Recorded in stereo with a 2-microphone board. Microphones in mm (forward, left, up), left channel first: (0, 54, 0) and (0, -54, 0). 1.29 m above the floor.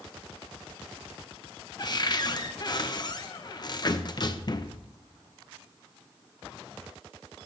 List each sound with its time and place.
1.8 s a cupboard door: 45° left (ahead or behind), 0.6 m